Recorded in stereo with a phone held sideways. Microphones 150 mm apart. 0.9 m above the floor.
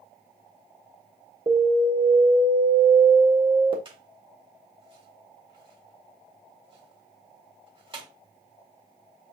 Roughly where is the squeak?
Right.